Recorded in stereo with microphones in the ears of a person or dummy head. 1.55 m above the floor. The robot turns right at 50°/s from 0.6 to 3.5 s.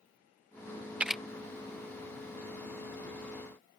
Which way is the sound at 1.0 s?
5° right (ahead or behind).